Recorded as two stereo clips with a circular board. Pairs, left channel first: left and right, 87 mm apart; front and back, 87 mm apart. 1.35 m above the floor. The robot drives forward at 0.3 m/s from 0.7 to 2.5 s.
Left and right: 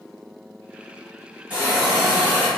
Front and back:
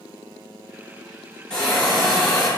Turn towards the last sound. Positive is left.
turn(degrees=-100)